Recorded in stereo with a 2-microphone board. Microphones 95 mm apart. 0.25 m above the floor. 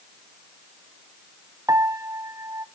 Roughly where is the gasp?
No gasp in this recording.